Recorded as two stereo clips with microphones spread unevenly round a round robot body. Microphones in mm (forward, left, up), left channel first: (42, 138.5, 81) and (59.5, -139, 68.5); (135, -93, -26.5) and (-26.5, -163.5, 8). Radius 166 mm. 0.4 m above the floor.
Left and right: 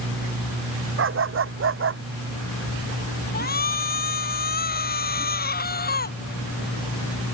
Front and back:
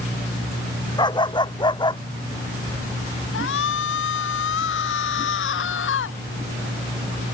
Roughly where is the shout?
Ahead left.